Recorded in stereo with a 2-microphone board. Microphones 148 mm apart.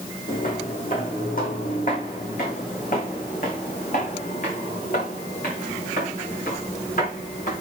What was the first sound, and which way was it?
Footsteps, 65° left (ahead or behind).